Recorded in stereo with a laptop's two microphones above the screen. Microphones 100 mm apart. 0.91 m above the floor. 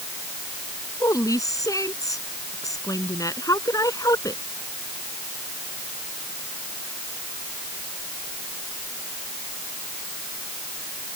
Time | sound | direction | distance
1.0 | a woman speaking | 35° left (ahead or behind) | ?